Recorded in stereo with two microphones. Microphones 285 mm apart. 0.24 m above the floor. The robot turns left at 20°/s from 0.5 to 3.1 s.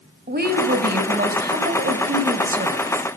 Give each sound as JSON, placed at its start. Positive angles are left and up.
{"t": 0.3, "sound": "a woman speaking", "azimuth_deg": -75, "distance_m": 1.8}